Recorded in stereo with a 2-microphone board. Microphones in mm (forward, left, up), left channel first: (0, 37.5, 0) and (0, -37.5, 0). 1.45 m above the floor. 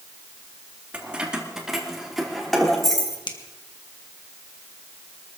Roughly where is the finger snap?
Left.